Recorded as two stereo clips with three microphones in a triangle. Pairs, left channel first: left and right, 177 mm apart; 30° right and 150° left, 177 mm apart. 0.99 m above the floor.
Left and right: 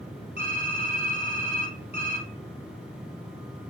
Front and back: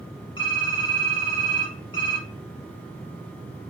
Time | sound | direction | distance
0.4 | typing on a keyboard | 30° left | 1.8 m